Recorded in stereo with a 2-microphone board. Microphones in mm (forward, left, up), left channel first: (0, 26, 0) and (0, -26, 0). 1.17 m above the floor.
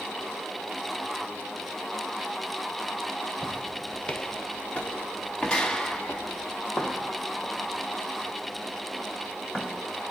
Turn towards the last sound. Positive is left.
turn(degrees=5)  # may be behind; listen again after turning